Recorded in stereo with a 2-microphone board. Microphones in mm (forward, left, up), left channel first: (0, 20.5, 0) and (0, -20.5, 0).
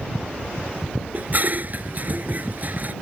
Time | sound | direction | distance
1.1 | dishes clattering | 45° right (ahead or behind) | ?